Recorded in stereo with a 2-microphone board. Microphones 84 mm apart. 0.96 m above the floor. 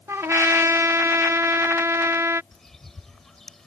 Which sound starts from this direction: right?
A trumpet, at 0.1 s.